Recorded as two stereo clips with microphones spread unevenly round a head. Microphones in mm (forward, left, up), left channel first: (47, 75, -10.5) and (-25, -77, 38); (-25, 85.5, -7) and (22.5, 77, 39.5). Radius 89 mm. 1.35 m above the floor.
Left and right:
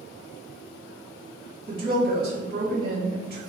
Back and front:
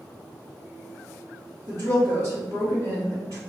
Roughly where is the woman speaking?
Right.